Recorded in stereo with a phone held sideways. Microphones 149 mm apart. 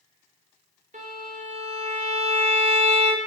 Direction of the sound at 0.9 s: 55° right (ahead or behind).